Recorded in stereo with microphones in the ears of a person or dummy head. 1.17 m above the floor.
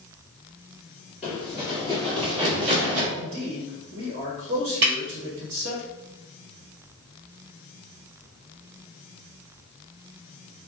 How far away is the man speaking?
About 0.9 m.